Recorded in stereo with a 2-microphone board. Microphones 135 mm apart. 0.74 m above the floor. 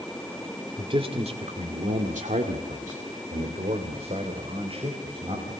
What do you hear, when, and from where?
0.8 s a man speaking: 40° right (ahead or behind), 2.5 m